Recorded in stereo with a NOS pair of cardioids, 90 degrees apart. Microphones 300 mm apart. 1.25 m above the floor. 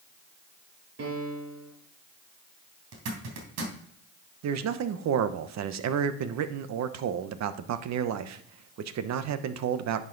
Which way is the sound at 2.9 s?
65° right.